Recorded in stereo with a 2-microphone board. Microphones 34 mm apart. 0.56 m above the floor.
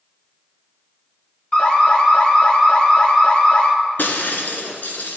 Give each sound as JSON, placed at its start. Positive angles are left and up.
{"t": 1.5, "sound": "an alarm", "side_deg": 25, "distance_m": 1.5}
{"t": 4.0, "sound": "breaking glass", "side_deg": 65, "distance_m": 1.5}